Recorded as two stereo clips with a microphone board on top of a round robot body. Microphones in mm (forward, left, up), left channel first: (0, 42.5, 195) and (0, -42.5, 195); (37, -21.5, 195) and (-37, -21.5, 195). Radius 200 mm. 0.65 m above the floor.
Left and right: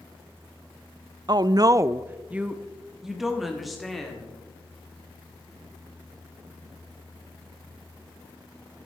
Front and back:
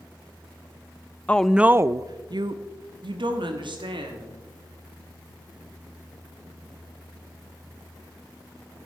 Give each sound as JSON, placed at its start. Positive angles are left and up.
{"t": 1.3, "sound": "a woman speaking", "azimuth_deg": -70, "distance_m": 0.6}